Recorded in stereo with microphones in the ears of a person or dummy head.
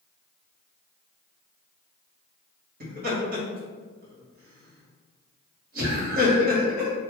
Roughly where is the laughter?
Right.